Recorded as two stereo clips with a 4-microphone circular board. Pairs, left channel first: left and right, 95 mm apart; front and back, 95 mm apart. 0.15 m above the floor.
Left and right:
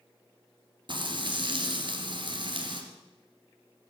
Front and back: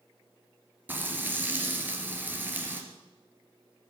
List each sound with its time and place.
0.9 s frying: 115° right, 2.5 m